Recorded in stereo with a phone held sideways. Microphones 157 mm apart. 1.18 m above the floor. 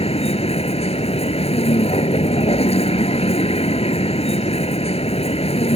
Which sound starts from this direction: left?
A vehicle, at 0.0 s.